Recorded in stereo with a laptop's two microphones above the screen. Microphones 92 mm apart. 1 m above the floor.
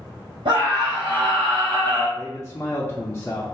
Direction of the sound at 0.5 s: 70° right (ahead or behind).